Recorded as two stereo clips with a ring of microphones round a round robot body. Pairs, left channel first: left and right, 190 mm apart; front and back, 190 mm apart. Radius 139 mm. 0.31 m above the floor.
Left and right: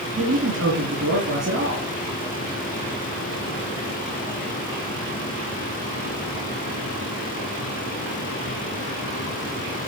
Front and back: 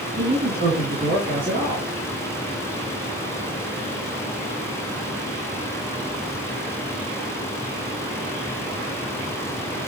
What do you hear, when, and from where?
0.2 s a man speaking: 120° right, 3 m